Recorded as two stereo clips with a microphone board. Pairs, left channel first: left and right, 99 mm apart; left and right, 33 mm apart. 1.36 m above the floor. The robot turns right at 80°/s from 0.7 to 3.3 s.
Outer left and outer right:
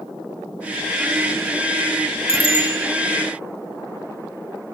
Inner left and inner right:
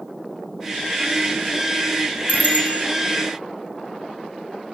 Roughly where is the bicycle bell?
Left.